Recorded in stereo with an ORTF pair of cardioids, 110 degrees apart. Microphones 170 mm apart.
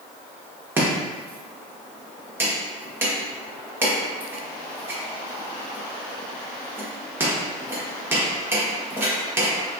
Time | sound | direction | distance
0.8 | chopping | 15° right | 0.8 m